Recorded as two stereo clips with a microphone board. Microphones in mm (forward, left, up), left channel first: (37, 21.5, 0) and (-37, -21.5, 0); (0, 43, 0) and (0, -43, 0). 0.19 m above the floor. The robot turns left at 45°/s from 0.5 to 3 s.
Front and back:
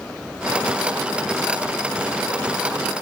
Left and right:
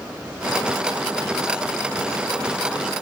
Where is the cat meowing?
No cat meowing in this recording.